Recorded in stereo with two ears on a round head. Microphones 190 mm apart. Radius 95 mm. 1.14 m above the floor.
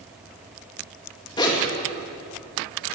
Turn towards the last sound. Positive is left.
turn(degrees=20)  # may be behind; listen again after turning